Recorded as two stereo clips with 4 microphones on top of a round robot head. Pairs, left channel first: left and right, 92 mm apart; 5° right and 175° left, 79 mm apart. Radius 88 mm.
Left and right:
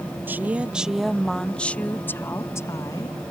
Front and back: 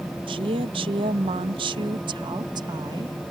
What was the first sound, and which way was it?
A woman speaking, 160° right.